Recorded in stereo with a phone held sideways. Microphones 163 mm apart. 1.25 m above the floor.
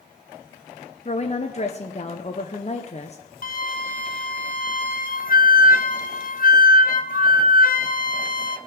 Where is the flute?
55° left (ahead or behind), 0.6 m.